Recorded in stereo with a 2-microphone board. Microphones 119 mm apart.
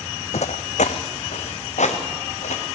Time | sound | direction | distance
0.3 | footsteps | 75° left (ahead or behind) | 0.6 m